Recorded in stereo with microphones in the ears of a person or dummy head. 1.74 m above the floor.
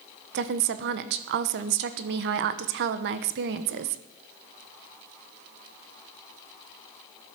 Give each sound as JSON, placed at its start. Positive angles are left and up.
{"t": 0.3, "sound": "a woman speaking", "side_deg": -55, "distance_m": 1.0}